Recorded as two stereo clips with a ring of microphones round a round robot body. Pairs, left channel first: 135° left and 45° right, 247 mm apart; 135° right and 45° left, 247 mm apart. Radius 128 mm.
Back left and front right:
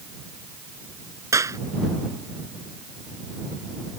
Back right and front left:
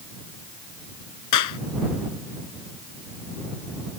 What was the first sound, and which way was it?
A clap, 125° right.